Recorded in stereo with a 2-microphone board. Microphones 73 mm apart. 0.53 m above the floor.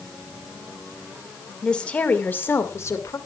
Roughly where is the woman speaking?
Centre.